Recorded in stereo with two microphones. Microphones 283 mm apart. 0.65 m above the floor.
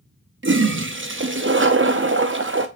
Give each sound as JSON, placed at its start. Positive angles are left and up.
{"t": 0.4, "sound": "a toilet flushing", "side_deg": -45, "distance_m": 0.5}